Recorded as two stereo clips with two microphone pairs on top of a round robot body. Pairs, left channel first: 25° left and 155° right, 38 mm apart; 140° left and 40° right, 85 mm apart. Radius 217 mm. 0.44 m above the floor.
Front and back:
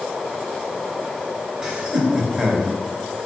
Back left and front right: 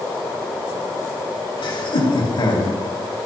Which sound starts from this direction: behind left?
Laughter, at 1.6 s.